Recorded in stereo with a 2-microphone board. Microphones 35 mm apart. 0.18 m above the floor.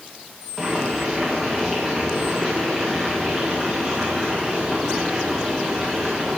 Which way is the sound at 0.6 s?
5° right (ahead or behind).